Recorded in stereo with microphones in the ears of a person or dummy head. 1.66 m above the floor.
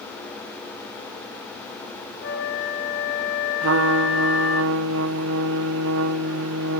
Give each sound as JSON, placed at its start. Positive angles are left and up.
{"t": 2.2, "sound": "a flute", "side_deg": 60, "distance_m": 6.5}
{"t": 3.6, "sound": "a trumpet", "side_deg": -65, "distance_m": 1.1}